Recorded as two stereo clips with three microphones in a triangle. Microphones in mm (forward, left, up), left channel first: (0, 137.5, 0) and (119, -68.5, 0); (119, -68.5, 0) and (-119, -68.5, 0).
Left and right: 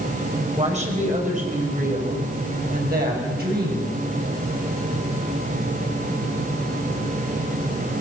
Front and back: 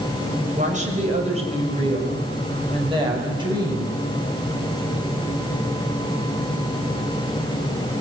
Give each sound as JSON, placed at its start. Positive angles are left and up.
{"t": 0.6, "sound": "a woman speaking", "azimuth_deg": -120, "distance_m": 5.5}